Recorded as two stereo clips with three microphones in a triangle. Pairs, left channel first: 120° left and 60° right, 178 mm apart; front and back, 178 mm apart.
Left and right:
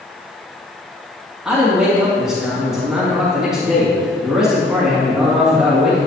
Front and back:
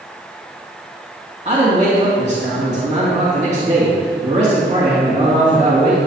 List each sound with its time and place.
1.4 s a man speaking: 145° right, 2 m